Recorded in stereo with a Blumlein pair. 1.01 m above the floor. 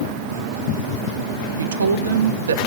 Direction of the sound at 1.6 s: 65° right.